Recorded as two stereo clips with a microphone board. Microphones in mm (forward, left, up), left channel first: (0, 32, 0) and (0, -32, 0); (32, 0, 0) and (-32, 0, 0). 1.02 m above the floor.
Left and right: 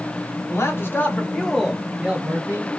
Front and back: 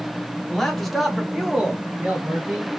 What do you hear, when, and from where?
0.5 s a man speaking: 80° left, 0.9 m; by 2.7 s 115° right, 0.8 m